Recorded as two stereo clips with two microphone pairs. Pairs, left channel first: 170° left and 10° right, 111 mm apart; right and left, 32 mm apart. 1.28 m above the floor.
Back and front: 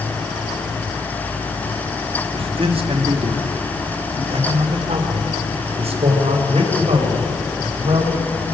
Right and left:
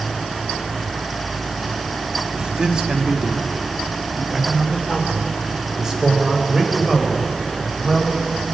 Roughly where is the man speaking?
Ahead left.